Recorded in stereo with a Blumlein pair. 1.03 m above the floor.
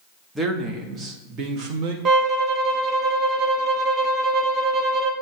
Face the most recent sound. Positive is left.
turn(degrees=-25)